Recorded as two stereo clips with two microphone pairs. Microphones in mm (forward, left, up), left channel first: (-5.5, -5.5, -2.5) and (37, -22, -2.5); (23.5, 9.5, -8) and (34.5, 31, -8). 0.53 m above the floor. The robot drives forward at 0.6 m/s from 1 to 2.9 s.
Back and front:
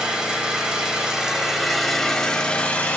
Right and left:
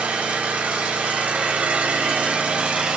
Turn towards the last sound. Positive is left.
turn(degrees=105)